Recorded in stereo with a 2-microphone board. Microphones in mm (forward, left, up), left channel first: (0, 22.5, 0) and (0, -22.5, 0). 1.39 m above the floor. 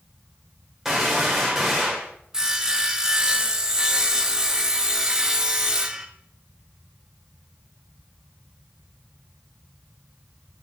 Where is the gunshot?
5° right (ahead or behind), 1.7 m.